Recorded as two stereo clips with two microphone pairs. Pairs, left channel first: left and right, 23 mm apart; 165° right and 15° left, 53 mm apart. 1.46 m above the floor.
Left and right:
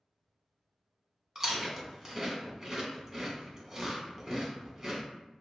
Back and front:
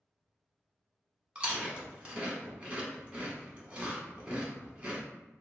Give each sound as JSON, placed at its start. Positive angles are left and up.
{"t": 1.4, "sound": "chewing", "azimuth_deg": -40, "distance_m": 0.9}